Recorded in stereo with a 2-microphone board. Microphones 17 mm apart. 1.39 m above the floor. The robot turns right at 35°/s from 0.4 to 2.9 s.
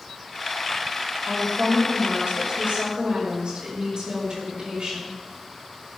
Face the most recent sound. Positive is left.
turn(degrees=-50)